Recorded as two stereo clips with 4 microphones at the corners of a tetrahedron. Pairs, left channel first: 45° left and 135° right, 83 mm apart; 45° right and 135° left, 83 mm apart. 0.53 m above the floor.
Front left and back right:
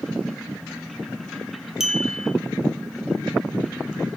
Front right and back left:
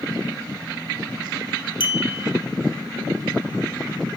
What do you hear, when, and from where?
1.8 s a clink: 50° right, 1.3 m